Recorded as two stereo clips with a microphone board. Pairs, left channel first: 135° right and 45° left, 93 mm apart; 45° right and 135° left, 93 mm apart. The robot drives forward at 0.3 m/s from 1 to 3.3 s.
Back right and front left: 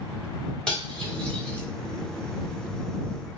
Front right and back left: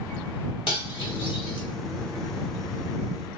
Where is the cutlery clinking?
55° right, 1.2 m; by 1.6 s 60° right, 1.1 m.